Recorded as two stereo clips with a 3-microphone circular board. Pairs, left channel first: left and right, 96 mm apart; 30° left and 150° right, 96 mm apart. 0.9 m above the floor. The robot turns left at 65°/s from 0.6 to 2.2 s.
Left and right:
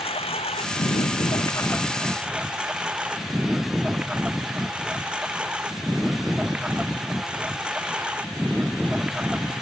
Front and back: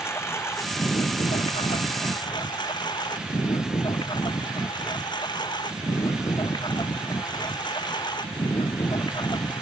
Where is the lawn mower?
95° left; by 9.6 s 10° right.